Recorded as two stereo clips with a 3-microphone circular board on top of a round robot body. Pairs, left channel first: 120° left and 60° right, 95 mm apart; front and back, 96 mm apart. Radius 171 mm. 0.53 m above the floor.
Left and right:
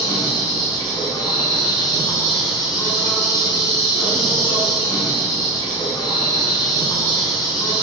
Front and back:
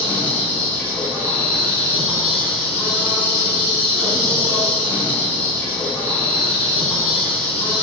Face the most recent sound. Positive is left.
turn(degrees=75)